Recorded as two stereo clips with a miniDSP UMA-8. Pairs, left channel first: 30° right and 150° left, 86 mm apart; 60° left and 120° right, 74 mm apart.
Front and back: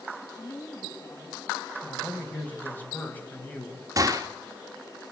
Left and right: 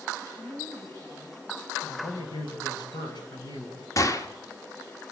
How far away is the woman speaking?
About 5.5 m.